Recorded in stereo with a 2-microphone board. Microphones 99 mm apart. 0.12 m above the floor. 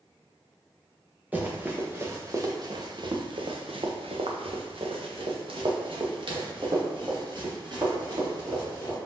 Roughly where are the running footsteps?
Centre.